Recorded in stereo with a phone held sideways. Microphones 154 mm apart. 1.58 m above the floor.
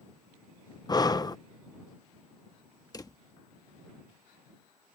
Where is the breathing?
25° left (ahead or behind).